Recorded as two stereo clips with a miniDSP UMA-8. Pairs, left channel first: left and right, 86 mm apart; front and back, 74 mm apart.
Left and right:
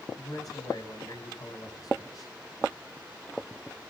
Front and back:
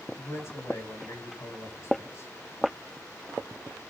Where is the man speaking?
50° left, 4 m.